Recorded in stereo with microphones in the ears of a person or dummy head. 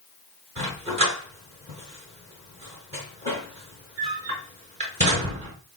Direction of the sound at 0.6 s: 35° right (ahead or behind).